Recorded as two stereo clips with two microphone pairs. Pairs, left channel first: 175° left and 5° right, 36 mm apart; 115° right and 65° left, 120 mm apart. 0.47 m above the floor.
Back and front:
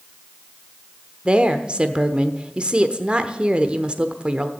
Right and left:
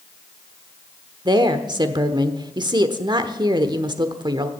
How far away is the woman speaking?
About 1.1 m.